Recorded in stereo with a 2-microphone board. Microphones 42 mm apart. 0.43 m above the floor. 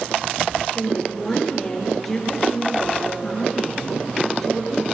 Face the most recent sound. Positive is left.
turn(degrees=5)  # may be behind; listen again after turning